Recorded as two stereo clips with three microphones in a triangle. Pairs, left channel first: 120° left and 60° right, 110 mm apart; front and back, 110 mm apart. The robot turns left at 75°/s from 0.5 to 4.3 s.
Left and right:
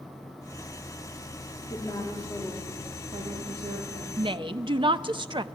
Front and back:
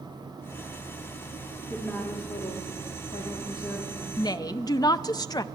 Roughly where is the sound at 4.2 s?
Ahead right.